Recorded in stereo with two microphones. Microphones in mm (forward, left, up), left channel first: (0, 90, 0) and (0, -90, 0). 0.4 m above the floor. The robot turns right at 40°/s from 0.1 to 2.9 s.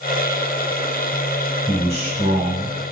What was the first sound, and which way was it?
A man speaking, 145° right.